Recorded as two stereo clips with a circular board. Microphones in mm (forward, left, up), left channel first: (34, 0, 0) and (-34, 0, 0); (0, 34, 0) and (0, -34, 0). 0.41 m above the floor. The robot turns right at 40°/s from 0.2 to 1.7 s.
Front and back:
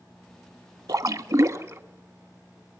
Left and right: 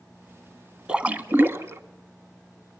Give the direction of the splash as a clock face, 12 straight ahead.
5 o'clock.